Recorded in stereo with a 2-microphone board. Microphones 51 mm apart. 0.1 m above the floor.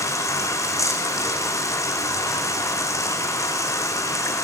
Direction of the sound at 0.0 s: 80° left.